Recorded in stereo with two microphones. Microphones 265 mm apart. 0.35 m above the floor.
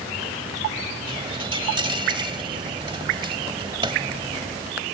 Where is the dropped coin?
20° right (ahead or behind).